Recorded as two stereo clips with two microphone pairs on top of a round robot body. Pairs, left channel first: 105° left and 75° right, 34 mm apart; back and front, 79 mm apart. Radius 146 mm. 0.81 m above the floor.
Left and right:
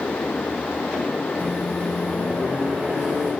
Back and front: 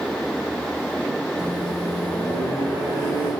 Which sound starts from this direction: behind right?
A microwave, at 1.4 s.